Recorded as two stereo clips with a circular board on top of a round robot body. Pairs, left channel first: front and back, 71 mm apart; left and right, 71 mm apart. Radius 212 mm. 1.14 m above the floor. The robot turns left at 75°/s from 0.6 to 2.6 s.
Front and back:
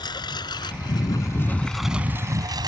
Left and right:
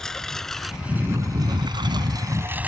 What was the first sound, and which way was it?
A lawn mower, 10° left.